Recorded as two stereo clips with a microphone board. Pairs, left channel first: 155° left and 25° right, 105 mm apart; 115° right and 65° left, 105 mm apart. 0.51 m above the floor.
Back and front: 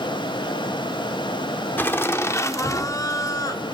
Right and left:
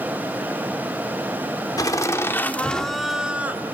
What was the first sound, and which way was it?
Laughter, 140° right.